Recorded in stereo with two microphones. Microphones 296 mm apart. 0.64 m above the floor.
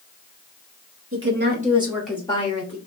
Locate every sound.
1.1 s a woman speaking: 45° right (ahead or behind), 1.5 m; by 2.8 s 35° left (ahead or behind), 1.4 m